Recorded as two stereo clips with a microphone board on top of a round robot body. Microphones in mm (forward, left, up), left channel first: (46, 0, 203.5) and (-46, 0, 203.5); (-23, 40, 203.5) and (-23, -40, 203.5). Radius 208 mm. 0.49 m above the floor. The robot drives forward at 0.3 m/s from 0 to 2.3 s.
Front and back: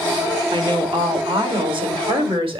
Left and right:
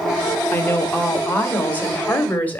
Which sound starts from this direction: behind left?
A woman speaking, at 0.5 s.